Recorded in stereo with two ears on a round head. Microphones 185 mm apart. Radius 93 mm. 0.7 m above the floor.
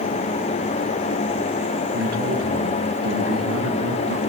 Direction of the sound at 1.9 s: 60° right (ahead or behind).